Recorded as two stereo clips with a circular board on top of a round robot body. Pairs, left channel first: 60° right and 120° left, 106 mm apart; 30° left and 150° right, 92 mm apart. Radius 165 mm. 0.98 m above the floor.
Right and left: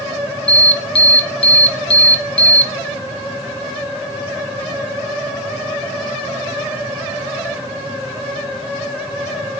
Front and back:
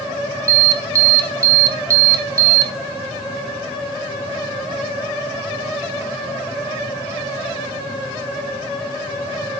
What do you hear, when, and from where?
0.5 s an alarm: 95° right, 3 m